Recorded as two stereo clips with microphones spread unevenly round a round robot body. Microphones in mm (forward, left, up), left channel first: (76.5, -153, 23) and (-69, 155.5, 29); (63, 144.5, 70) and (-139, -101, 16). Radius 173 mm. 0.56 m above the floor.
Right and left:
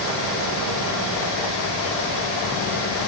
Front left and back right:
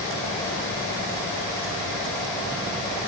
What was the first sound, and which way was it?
Only background noise.